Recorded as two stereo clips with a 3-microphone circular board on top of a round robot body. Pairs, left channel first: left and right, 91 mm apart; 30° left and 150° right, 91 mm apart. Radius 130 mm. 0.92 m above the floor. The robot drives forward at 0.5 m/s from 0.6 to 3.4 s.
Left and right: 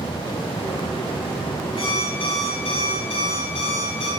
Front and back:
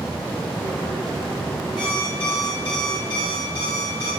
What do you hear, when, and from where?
1.8 s an alarm clock: 65° left, 9 m; by 4.1 s 70° left, 8.5 m